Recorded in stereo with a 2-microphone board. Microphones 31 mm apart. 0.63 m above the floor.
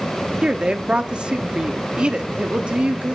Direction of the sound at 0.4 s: 35° right (ahead or behind).